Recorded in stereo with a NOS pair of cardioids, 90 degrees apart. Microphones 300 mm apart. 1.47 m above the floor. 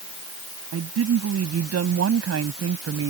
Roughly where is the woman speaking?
Ahead right.